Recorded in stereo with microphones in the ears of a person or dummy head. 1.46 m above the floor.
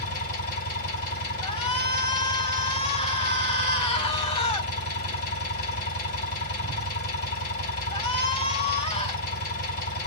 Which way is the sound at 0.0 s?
50° left (ahead or behind).